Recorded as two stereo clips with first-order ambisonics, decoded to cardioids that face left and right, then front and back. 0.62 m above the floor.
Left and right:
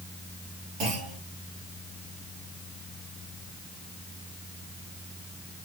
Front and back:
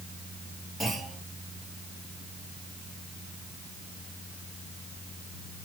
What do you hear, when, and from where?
0.8 s a clunk: 85° right, 4 m